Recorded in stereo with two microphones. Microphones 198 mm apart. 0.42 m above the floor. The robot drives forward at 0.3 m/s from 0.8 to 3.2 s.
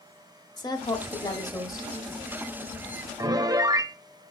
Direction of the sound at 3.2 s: 20° right (ahead or behind).